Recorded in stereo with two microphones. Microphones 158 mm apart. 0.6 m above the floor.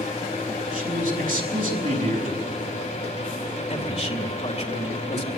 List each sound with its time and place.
0.7 s a man speaking: 60° right (ahead or behind), 5.5 m
3.7 s a man speaking: 45° left (ahead or behind), 2.5 m